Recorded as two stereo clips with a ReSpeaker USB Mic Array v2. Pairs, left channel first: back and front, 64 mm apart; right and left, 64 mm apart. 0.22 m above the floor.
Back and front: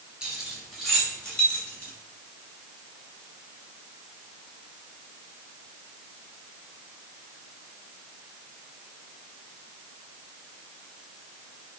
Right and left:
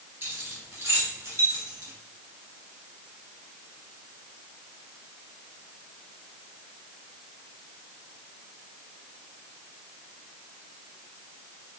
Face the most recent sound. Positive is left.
turn(degrees=115)